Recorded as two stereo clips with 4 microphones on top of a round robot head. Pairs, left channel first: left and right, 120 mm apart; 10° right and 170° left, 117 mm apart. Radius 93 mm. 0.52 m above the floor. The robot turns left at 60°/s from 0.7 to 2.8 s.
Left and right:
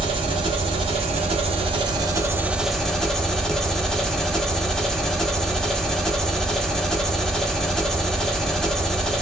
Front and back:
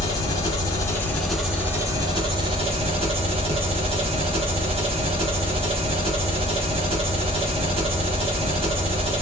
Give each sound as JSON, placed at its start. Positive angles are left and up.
{"t": 0.0, "sound": "an engine running", "azimuth_deg": -60, "distance_m": 1.3}